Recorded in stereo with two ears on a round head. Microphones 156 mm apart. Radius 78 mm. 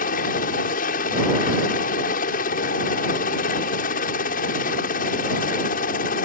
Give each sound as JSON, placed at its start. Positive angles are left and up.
{"t": 0.0, "sound": "a helicopter", "side_deg": 50}